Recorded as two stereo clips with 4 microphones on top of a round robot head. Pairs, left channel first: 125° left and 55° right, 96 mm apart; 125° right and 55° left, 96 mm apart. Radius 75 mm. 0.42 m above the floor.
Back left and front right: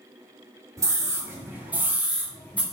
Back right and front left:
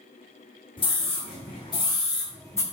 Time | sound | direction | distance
0.8 | a scream | 105° right | 2.5 m